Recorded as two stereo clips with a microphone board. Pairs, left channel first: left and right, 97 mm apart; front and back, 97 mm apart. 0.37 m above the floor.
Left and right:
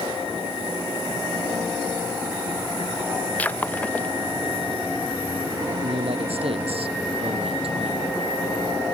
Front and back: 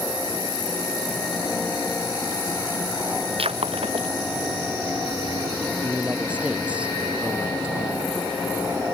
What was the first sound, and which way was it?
Breaking glass, 165° left.